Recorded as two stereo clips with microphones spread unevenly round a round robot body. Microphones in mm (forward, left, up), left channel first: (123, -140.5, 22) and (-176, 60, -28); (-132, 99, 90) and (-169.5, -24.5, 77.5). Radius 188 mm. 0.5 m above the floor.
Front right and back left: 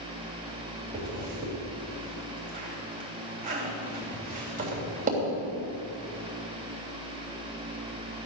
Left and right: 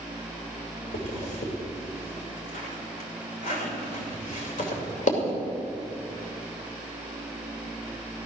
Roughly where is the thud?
No thud in this recording.